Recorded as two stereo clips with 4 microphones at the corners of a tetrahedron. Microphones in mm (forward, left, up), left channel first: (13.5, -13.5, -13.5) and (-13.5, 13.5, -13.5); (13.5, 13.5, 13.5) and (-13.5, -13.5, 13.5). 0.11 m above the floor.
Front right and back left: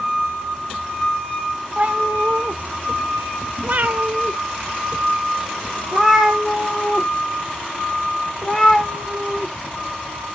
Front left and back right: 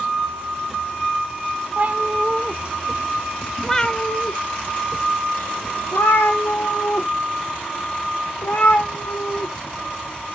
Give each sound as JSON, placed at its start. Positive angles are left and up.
{"t": 1.8, "sound": "a cat meowing", "azimuth_deg": -175, "distance_m": 1.2}